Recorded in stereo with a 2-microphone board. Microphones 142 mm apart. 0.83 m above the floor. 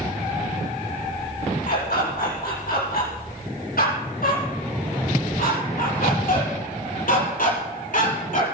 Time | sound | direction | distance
1.7 | a dog barking | 85° left | 9 m